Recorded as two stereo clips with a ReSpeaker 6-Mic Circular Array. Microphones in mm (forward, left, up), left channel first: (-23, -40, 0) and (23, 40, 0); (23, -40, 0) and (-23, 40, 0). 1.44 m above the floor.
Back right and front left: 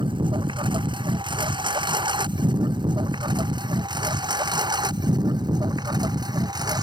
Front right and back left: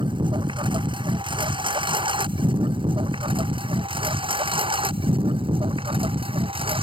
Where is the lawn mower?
90° left; by 6.8 s 100° left.